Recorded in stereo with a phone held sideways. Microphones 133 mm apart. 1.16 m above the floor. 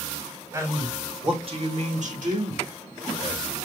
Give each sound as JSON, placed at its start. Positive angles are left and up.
{"t": 0.5, "sound": "a man speaking", "side_deg": -20, "distance_m": 1.9}